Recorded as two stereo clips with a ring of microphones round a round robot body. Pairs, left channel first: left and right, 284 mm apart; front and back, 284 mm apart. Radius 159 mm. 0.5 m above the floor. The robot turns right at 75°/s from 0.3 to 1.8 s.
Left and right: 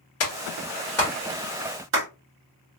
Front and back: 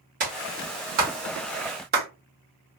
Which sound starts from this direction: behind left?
A clap, at 0.2 s.